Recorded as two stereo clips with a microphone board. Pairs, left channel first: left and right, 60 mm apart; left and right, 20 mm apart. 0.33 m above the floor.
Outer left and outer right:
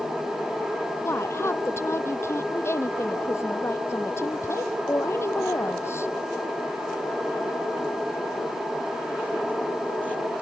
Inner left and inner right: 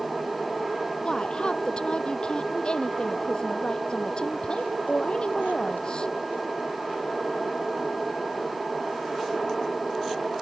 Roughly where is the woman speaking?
Left.